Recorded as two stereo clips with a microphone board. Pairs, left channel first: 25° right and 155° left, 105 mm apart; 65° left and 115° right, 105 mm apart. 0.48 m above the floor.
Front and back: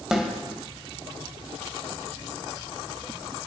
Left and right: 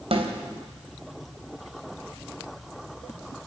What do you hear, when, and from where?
0.1 s a snare drum: 120° right, 3 m